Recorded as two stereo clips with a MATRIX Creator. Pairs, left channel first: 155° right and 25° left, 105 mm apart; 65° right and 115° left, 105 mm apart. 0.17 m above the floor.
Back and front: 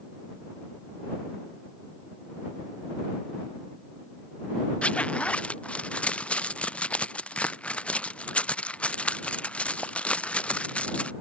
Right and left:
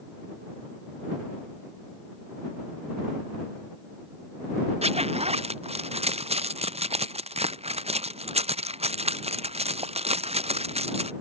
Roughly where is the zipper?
Behind left.